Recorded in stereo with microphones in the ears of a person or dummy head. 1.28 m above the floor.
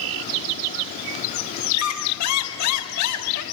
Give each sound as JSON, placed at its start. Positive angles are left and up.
{"t": 1.7, "sound": "a squeak", "side_deg": 85, "distance_m": 4.5}